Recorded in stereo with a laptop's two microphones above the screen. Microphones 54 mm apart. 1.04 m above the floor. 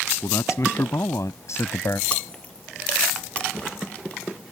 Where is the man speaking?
70° left (ahead or behind); by 2.0 s 55° left (ahead or behind).